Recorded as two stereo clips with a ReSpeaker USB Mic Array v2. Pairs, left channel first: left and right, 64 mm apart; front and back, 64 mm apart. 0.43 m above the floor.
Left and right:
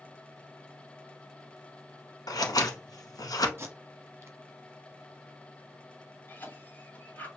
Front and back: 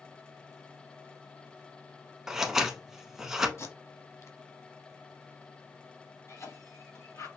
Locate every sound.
2.3 s scissors: 95° left, 0.9 m
3.6 s tape being pulled: 40° right, 1.2 m
6.3 s a cough: 30° left, 3 m